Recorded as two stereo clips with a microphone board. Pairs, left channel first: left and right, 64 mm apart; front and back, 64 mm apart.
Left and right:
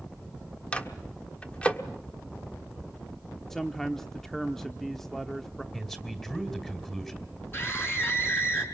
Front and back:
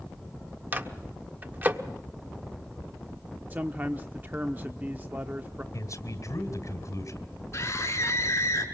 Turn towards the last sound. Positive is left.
turn(degrees=40)